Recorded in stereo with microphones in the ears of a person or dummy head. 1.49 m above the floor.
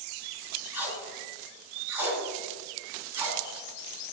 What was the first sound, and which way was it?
Tape being pulled, 15° right (ahead or behind).